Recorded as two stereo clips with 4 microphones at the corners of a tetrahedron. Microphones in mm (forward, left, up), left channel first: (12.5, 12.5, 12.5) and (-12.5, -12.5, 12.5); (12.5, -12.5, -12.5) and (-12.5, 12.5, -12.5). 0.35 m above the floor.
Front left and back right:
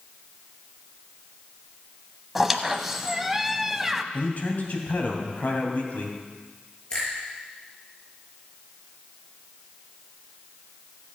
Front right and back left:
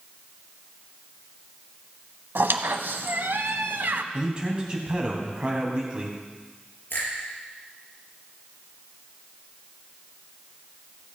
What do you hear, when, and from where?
2.4 s a squeak: 140° left, 0.7 m
4.1 s a man speaking: 75° left, 2.5 m
6.9 s a finger snap: 20° right, 6 m